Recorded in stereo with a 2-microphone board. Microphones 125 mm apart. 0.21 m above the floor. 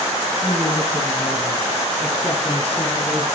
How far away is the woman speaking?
About 7 m.